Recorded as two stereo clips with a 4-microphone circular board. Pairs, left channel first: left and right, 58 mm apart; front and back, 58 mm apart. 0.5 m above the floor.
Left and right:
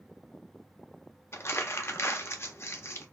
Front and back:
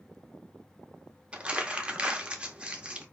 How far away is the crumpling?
About 0.6 m.